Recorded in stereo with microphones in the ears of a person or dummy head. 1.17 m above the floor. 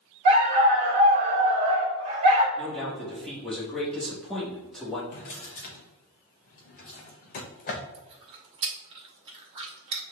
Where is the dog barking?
40° right (ahead or behind), 1.0 m.